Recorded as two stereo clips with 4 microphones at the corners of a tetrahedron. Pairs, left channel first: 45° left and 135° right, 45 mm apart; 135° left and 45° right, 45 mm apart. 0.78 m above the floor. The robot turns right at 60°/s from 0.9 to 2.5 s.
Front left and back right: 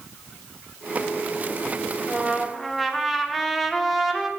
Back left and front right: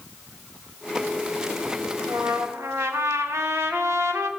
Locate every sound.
2.0 s a trumpet: 75° right, 0.9 m; by 4.3 s 45° right, 0.9 m